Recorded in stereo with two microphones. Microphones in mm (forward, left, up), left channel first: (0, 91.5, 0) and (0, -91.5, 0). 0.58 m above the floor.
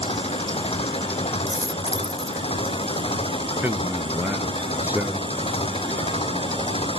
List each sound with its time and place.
0.0 s an engine running: 30° left (ahead or behind)
1.5 s a dropped coin: 20° right (ahead or behind)
3.6 s a man speaking: 10° right (ahead or behind)